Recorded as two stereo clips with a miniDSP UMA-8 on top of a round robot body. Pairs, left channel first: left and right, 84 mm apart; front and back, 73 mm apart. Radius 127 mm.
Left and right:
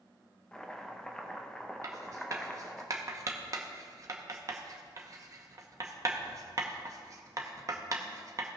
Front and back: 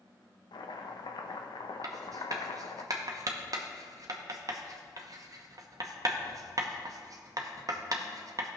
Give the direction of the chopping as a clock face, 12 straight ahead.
12 o'clock.